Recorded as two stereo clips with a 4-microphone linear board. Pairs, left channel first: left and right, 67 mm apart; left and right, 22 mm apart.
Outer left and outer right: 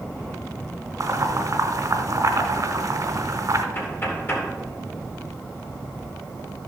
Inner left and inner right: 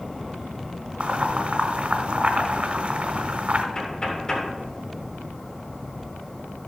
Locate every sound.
1.0 s boiling: 65° right (ahead or behind), 1.2 m
3.8 s knocking: 40° left (ahead or behind), 2.5 m